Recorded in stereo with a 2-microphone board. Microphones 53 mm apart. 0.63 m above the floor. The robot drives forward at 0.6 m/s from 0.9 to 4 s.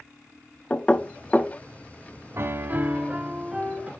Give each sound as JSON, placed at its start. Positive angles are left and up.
{"t": 0.7, "sound": "knocking", "side_deg": 20, "distance_m": 0.5}
{"t": 2.4, "sound": "a piano", "side_deg": -50, "distance_m": 0.5}